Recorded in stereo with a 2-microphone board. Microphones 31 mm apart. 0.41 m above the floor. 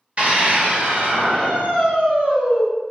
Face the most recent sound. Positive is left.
turn(degrees=-70)  # may be behind; listen again after turning